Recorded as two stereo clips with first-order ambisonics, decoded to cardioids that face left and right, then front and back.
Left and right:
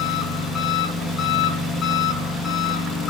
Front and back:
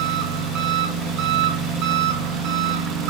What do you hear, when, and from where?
0.0 s an engine running: 160° left, 3.5 m